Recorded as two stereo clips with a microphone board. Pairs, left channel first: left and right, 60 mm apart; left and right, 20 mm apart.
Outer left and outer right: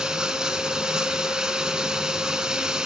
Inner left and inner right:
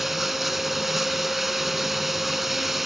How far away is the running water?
About 1.6 m.